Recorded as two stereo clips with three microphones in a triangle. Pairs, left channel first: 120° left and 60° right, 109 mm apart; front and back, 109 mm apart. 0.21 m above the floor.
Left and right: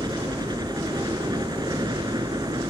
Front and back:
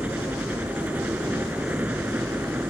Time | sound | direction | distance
0.0 | a helicopter | 105° right | ?